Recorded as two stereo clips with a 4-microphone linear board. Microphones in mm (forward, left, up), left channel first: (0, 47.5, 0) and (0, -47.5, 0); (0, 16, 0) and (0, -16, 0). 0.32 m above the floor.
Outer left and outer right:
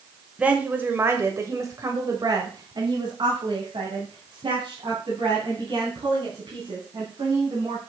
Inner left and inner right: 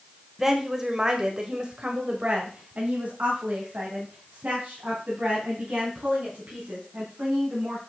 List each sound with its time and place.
0.4 s a woman speaking: 10° right (ahead or behind), 1.5 m; by 7.8 s 60° right (ahead or behind), 4 m